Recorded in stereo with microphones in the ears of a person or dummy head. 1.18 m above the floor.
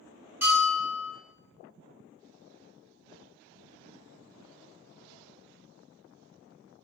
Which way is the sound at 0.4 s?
10° right (ahead or behind).